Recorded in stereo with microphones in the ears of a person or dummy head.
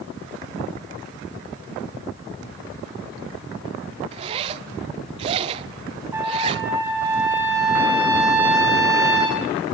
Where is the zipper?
30° right (ahead or behind), 0.7 m.